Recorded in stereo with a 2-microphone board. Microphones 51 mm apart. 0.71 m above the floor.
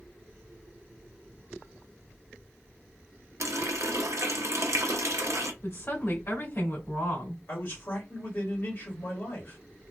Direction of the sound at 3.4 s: 70° right (ahead or behind).